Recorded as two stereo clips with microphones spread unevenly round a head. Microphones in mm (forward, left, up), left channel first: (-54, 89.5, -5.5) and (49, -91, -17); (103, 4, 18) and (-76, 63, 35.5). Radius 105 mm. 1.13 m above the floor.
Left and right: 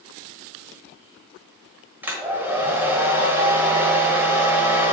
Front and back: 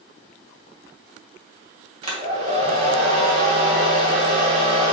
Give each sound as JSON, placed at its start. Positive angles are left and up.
{"t": 2.0, "sound": "a hair dryer", "azimuth_deg": -140, "distance_m": 1.4}